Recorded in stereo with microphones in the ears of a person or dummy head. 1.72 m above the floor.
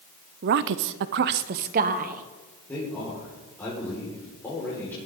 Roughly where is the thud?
No thud in this recording.